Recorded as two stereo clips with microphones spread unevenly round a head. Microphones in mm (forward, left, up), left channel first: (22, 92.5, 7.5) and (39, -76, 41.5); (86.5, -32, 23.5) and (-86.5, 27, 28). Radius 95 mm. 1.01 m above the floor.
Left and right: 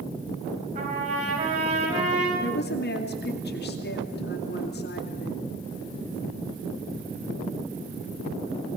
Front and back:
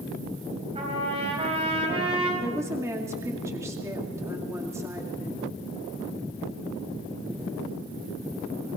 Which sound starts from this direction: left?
A woman speaking, at 2.4 s.